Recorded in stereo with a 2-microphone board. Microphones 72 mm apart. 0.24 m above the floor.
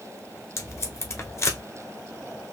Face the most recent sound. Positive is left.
turn(degrees=40)  # may be behind; listen again after turning